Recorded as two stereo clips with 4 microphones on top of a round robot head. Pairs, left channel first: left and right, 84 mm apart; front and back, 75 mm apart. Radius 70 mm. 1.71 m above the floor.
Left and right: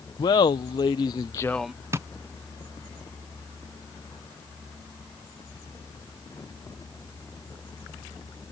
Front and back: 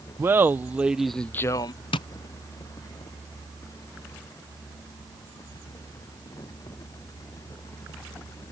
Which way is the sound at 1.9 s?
25° right.